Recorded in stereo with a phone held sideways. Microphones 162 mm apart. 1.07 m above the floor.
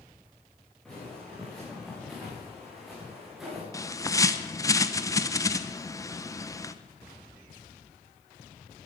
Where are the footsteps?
Centre (ahead or behind), 7.5 m.